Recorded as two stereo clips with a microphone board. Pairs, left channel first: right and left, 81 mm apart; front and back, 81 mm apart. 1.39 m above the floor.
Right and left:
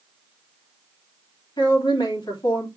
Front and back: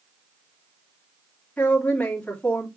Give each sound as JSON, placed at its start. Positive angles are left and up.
{"t": 1.6, "sound": "a woman speaking", "azimuth_deg": -75, "distance_m": 3.0}